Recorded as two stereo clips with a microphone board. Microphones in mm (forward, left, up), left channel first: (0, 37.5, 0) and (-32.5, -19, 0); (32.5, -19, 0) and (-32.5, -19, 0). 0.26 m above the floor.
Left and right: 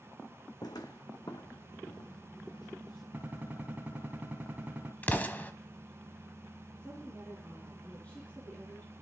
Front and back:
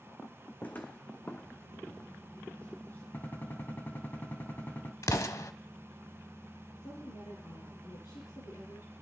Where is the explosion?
5° left, 0.9 m.